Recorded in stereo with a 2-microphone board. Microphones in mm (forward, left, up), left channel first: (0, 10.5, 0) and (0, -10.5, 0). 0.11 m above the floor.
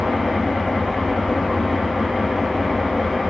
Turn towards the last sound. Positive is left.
turn(degrees=45)  # may be behind; listen again after turning